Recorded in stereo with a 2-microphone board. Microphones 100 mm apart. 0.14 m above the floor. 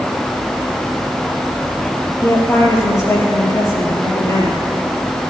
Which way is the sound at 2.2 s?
30° left (ahead or behind).